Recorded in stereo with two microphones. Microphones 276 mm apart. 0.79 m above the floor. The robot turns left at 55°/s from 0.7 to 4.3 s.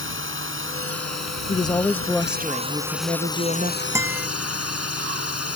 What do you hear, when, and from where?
0.0 s a drone: 50° right; by 5.6 s 110° left
1.5 s a woman speaking: 40° left; by 3.8 s 90° right
4.0 s a guitar: 10° right (ahead or behind); by 4.3 s centre (ahead or behind)